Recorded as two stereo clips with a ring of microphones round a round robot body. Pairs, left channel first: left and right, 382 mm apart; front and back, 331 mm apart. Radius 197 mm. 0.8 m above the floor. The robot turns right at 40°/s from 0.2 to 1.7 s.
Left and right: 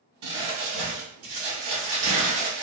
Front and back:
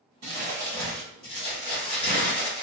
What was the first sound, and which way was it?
Crumpling, 120° right.